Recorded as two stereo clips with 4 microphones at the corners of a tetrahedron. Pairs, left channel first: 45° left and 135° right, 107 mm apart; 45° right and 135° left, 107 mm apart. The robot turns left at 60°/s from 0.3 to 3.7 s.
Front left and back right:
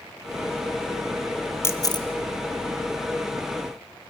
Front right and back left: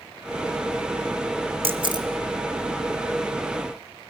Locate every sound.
1.6 s a camera shutter: 110° left, 1.3 m; by 2.1 s 85° left, 1.3 m